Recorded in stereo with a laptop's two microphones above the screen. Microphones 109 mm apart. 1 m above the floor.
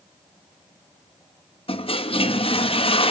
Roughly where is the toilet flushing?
Left.